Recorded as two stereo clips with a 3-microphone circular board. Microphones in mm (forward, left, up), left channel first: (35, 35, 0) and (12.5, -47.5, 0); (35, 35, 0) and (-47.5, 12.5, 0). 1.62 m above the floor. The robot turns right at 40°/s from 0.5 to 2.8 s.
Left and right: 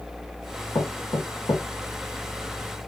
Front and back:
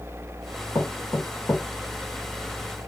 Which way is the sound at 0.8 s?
55° left.